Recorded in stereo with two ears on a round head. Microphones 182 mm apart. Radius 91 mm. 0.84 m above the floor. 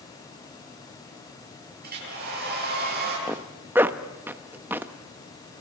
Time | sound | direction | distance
1.8 | a hair dryer | 50° right (ahead or behind) | 9.5 m
3.3 | a zipper | 10° right (ahead or behind) | 0.9 m